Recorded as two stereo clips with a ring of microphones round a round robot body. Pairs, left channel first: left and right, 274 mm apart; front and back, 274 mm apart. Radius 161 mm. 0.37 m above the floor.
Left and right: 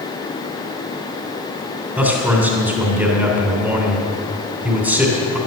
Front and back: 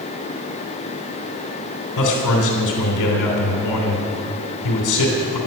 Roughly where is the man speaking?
Ahead.